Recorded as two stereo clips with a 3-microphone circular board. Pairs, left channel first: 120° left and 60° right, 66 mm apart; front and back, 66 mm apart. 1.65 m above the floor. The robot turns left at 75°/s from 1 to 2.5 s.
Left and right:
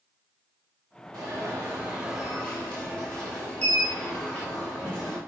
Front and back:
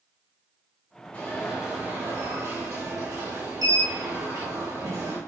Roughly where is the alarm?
Ahead right.